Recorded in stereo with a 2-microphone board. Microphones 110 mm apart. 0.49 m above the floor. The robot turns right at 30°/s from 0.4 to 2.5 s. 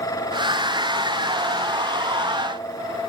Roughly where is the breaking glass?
I don't hear breaking glass.